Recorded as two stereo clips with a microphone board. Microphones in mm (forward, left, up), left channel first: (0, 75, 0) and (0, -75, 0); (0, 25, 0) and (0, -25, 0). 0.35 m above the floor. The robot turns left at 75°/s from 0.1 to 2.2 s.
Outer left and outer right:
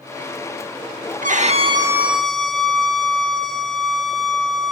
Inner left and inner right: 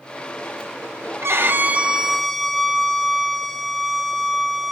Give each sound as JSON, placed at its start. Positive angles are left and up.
{"t": 1.2, "sound": "a violin", "azimuth_deg": -110, "distance_m": 0.6}